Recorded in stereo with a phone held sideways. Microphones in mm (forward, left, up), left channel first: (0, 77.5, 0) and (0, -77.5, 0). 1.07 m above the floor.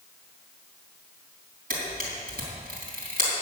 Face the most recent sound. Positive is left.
turn(degrees=-75)  # may be behind; listen again after turning